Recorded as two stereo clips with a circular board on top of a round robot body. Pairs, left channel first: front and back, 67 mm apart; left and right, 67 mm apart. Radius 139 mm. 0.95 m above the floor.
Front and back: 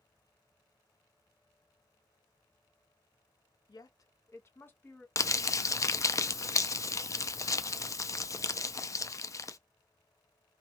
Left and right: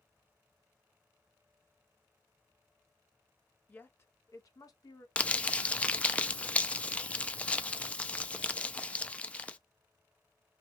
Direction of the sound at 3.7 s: 20° left.